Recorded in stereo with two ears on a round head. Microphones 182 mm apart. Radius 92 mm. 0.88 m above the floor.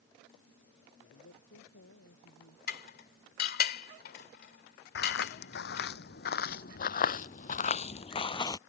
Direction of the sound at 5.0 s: 60° left (ahead or behind).